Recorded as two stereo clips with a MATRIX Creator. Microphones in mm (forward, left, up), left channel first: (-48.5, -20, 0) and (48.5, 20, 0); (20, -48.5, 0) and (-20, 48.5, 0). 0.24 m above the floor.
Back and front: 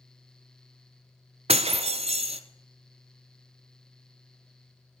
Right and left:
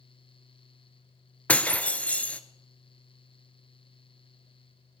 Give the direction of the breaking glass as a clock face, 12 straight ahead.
12 o'clock.